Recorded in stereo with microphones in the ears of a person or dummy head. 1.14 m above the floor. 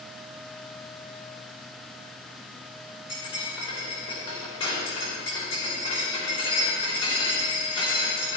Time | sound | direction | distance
3.1 | cutlery clinking | 30° left (ahead or behind) | 3 m